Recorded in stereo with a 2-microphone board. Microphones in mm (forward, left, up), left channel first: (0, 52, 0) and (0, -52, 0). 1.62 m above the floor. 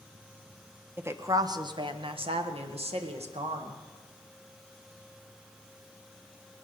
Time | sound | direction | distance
1.0 | a woman speaking | 20° right (ahead or behind) | 1.0 m